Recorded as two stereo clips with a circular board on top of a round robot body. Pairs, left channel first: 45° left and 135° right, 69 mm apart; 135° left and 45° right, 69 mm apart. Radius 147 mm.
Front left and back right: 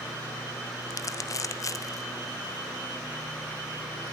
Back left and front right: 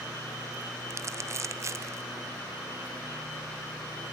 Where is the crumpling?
5° left, 0.8 m.